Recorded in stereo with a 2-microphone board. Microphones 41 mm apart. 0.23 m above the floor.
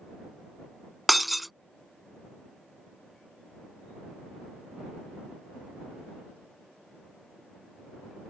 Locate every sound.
1.1 s breaking glass: centre (ahead or behind)